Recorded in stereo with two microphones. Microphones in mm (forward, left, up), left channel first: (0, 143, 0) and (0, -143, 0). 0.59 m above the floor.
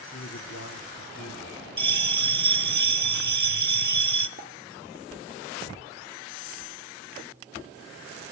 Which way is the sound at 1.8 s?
80° right.